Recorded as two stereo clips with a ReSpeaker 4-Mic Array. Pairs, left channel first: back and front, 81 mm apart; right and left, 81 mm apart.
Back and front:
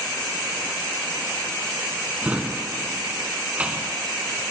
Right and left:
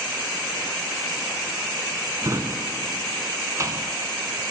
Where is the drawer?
65° left, 0.6 m.